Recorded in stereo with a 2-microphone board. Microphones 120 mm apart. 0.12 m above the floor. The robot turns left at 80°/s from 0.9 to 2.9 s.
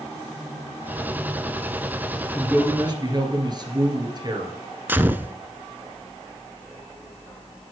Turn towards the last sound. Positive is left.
turn(degrees=-15)  # may be behind; listen again after turning